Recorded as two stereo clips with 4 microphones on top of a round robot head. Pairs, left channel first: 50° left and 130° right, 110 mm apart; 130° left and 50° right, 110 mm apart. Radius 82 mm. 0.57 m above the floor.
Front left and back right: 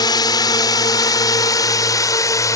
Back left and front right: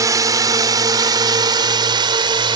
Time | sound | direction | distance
0.0 | a drone | 5° left | ?